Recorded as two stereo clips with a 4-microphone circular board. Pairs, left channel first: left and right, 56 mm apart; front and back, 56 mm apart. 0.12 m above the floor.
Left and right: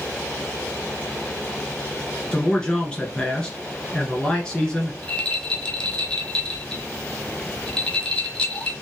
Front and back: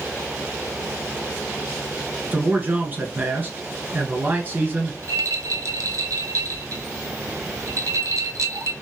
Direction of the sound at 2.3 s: 155° left.